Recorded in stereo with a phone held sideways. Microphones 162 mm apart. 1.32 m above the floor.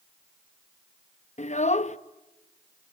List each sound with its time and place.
1.4 s a child speaking: 45° left (ahead or behind), 0.8 m